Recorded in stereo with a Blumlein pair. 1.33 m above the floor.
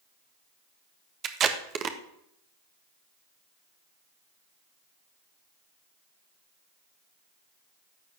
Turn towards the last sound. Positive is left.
turn(degrees=-25)